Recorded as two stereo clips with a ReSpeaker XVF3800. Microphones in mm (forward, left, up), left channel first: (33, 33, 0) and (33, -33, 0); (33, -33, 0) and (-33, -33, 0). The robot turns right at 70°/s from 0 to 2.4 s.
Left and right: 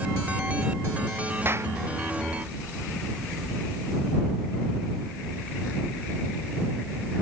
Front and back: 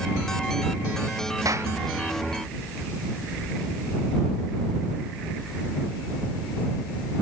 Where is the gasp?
I don't hear a gasp.